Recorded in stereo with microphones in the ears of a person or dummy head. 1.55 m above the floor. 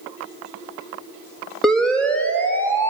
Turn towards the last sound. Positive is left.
turn(degrees=15)  # may be behind; listen again after turning